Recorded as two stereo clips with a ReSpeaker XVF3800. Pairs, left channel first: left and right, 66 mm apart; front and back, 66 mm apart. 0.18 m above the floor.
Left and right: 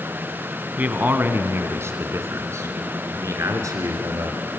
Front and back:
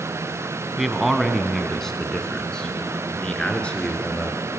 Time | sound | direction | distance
0.8 | a man speaking | 95° right | 1.5 m